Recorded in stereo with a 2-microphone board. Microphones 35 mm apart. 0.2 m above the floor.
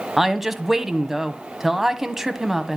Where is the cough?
No cough in this recording.